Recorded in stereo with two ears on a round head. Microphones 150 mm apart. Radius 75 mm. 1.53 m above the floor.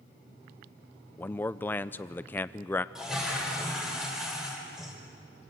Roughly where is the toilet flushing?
Centre.